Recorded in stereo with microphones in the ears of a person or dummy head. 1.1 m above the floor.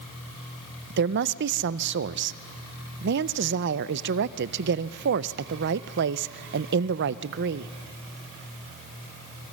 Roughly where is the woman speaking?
Right.